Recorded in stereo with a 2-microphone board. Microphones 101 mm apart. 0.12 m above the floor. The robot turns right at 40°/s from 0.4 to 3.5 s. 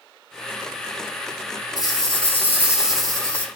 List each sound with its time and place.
1.8 s a rattle: 50° right, 1.4 m; by 3.5 s 15° left, 1.4 m